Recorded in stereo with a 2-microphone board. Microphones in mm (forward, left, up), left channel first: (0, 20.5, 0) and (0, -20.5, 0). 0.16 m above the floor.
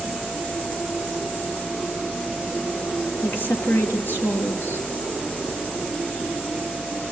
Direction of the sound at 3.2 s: 60° left (ahead or behind).